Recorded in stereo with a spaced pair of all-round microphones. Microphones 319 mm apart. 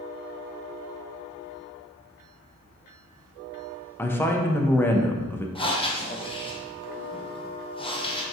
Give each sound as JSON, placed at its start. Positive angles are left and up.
{"t": 4.0, "sound": "a woman speaking", "side_deg": 5, "distance_m": 0.5}
{"t": 5.5, "sound": "breathing", "side_deg": 15, "distance_m": 0.6}